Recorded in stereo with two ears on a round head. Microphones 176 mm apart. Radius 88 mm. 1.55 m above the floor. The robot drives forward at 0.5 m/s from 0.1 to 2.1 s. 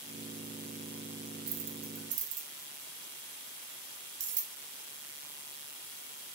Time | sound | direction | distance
1.5 | keys jangling | 70° right (ahead or behind) | 1.5 m